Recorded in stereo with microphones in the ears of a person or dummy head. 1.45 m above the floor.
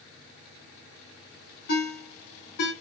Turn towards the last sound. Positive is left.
turn(degrees=65)  # may be behind; listen again after turning